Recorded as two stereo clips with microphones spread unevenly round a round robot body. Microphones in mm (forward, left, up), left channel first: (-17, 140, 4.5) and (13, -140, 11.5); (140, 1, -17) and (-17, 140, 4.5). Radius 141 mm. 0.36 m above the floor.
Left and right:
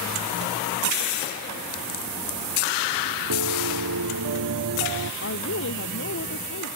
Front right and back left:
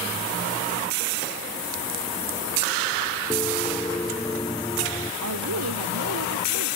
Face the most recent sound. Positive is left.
turn(degrees=145)